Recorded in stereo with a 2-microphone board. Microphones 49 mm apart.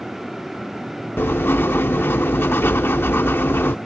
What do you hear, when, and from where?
1.2 s writing: 55° left (ahead or behind)